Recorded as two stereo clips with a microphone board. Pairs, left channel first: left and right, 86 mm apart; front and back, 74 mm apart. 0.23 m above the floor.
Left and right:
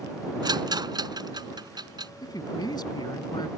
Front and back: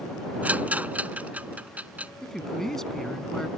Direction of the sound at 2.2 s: 80° left.